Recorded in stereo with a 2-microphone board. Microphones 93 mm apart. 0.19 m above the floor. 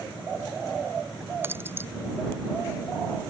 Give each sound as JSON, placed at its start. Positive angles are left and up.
{"t": 1.4, "sound": "keys jangling", "side_deg": -25}